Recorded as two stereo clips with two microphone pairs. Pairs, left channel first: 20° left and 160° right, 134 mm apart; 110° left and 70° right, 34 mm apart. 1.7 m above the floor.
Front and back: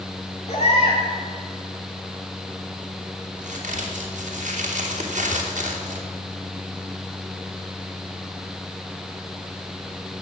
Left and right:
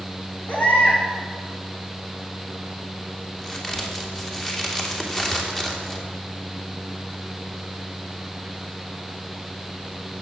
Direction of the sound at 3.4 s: 175° right.